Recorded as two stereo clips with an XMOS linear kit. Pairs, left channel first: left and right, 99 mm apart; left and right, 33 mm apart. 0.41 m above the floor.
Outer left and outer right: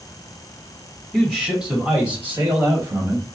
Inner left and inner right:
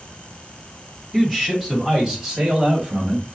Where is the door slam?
I don't hear a door slam.